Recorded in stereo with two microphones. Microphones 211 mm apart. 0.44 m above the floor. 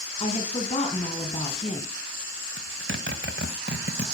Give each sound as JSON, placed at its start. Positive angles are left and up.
{"t": 0.2, "sound": "a woman speaking", "side_deg": 30, "distance_m": 4.5}
{"t": 2.6, "sound": "a zipper", "side_deg": -65, "distance_m": 1.6}